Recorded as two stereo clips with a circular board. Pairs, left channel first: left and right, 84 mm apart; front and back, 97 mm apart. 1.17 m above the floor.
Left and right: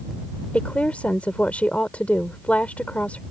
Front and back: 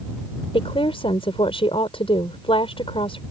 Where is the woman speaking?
15° left.